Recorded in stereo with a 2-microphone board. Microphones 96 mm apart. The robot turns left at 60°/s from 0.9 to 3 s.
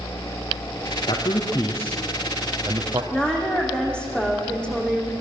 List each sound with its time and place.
1.1 s a man speaking: 60° left (ahead or behind), 3 m; by 3.0 s 40° right (ahead or behind), 3 m
3.1 s a woman speaking: 10° left (ahead or behind), 6 m